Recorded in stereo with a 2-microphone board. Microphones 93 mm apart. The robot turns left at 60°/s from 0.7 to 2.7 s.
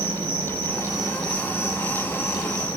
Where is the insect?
120° right, 1.0 m; by 2.8 s 120° left, 1.0 m.